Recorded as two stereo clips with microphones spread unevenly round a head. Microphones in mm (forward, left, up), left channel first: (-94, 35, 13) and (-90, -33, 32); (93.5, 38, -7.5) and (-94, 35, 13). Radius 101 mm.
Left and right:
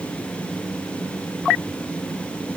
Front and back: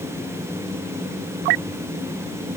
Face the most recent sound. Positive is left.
No sound to turn to.